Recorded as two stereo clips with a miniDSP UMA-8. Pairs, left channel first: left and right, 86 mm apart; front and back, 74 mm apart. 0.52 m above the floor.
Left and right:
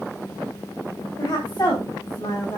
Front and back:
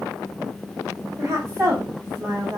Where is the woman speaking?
135° left, 2.5 m; by 2.6 s 130° left, 3.5 m.